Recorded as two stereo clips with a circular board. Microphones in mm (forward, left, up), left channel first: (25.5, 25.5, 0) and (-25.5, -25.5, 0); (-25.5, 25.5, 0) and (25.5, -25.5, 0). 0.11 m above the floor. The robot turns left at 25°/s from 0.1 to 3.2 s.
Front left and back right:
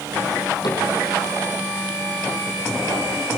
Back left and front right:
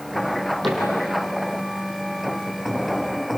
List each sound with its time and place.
0.6 s a cupboard door: 45° left, 5 m; by 0.8 s 40° left, 5 m